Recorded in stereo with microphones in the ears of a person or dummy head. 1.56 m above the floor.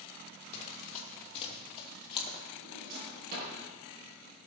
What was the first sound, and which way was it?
Running footsteps, 45° left (ahead or behind).